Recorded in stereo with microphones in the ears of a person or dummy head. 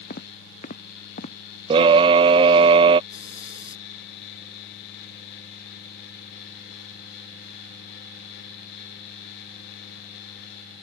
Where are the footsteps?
50° left (ahead or behind).